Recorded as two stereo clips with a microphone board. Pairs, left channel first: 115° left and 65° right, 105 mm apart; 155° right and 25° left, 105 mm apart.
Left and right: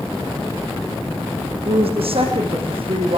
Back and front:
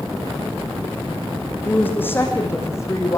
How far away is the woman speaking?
About 6.5 m.